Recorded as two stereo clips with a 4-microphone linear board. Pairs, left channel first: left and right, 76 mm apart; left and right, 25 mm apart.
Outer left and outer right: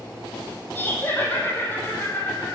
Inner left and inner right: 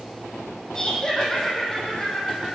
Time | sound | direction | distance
0.8 | laughter | 25° left (ahead or behind) | 5 m